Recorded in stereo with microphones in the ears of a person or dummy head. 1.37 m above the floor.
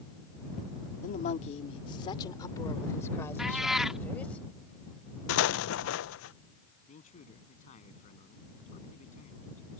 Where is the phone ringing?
No phone ringing in this recording.